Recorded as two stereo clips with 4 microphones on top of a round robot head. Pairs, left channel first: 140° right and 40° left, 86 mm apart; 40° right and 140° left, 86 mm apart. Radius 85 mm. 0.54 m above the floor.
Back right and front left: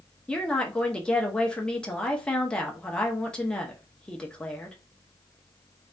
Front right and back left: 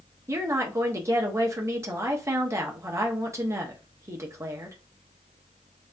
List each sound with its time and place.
0.3 s a woman speaking: 145° left, 0.7 m